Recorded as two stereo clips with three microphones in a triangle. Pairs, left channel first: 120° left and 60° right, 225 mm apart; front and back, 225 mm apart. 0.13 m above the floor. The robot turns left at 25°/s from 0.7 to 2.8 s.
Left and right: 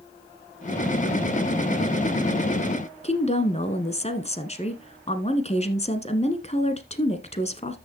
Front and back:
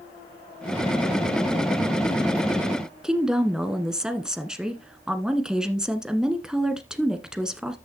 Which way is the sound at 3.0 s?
95° left.